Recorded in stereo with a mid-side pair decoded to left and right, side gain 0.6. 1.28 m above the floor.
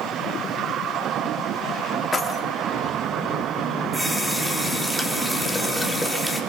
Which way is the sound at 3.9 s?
Straight ahead.